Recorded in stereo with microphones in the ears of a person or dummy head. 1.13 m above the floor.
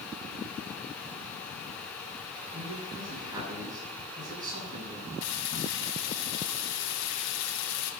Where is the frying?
70° left (ahead or behind), 2.5 m.